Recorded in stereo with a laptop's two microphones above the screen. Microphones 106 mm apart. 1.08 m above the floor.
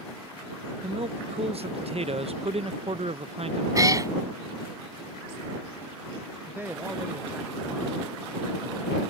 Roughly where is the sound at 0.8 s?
Right.